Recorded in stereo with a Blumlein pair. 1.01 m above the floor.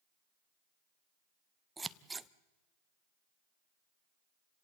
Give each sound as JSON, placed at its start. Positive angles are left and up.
{"t": 1.8, "sound": "scissors", "azimuth_deg": -10, "distance_m": 0.6}